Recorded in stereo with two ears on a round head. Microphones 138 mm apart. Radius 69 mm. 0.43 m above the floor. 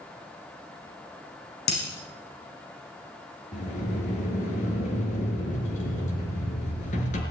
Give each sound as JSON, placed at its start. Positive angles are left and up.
{"t": 1.7, "sound": "breaking glass", "side_deg": 65, "distance_m": 8.5}
{"t": 3.5, "sound": "a sliding door", "side_deg": 45, "distance_m": 4.5}